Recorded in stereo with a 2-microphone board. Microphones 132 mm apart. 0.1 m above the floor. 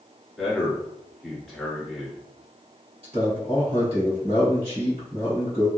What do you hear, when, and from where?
0.4 s a man speaking: centre (ahead or behind), 1.4 m
3.0 s a man speaking: 50° right (ahead or behind), 1.9 m